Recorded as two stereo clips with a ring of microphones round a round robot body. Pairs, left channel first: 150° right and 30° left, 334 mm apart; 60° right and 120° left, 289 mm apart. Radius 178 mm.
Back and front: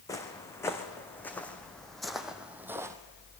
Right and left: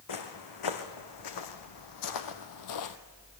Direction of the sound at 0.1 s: 70° right.